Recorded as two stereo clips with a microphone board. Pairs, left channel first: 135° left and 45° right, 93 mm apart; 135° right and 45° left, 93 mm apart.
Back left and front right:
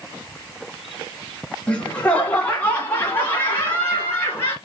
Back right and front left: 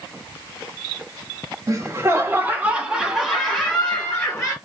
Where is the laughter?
65° left, 1.5 m; by 4.5 s 175° right, 1.5 m.